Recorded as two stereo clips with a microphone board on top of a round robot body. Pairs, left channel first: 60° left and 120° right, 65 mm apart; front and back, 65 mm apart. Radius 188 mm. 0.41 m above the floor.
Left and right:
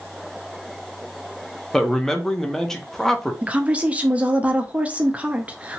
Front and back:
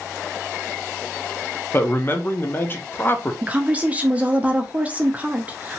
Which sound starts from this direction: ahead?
A man speaking, at 1.7 s.